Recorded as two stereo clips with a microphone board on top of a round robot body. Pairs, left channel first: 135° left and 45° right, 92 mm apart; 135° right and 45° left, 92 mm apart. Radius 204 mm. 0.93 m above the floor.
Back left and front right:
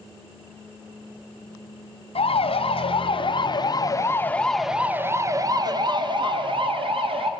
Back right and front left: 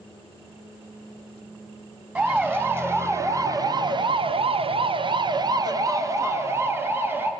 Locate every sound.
2.1 s a siren: 115° left, 2 m; by 7.3 s 20° right, 2.5 m